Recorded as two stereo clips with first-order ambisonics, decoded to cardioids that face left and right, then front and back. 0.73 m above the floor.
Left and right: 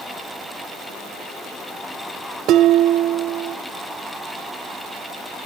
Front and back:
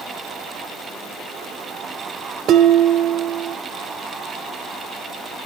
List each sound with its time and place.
2.5 s dishes clattering: 130° right, 0.9 m